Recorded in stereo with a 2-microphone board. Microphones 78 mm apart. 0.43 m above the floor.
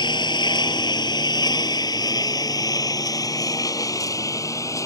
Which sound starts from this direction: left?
A lawn mower, at 0.0 s.